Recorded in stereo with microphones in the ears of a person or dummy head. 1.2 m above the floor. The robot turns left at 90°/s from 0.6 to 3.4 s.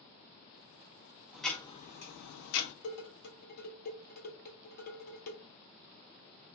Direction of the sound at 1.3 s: 175° right.